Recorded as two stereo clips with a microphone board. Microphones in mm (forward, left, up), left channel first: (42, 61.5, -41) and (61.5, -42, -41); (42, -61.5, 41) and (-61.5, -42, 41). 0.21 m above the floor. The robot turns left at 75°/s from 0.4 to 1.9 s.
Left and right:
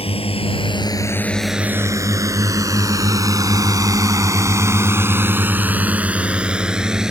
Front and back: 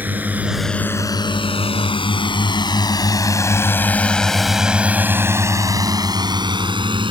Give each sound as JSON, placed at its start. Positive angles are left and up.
{"t": 0.0, "sound": "a drone", "azimuth_deg": 95}